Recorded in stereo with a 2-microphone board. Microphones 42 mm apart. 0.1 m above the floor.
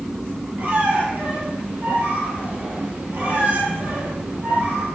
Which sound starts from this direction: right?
A squeak, at 0.6 s.